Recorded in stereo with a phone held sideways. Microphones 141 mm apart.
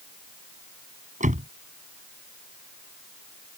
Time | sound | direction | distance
1.2 | a door slam | 55° right (ahead or behind) | ?